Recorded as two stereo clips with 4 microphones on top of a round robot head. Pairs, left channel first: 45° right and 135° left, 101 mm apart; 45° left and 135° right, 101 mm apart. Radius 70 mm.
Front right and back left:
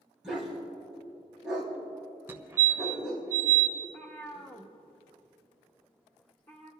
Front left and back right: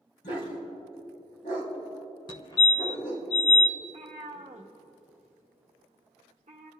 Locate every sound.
0.2 s a dog barking: 50° left, 3.5 m
2.3 s a fire alarm: 70° left, 1.2 m
3.8 s a cat meowing: 125° right, 1.1 m